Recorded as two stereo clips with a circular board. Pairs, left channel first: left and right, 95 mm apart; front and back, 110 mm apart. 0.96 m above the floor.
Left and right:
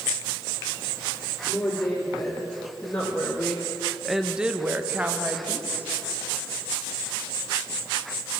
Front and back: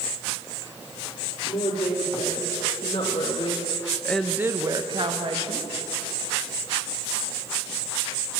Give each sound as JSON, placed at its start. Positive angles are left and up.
{"t": 1.5, "sound": "a woman speaking", "azimuth_deg": 15, "distance_m": 3.0}